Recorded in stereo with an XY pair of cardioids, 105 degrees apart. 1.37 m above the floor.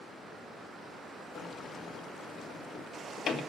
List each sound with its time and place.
1.4 s a sliding door: 70° left, 1.9 m